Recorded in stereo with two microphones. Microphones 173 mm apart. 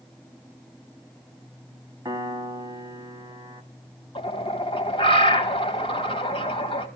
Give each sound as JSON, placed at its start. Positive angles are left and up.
{"t": 2.0, "sound": "a piano", "side_deg": -20, "distance_m": 1.5}
{"t": 4.2, "sound": "a bird", "side_deg": 30, "distance_m": 1.8}